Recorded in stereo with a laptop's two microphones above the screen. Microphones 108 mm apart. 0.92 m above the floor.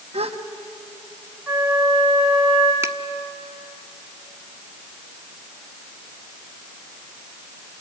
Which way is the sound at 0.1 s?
70° right (ahead or behind).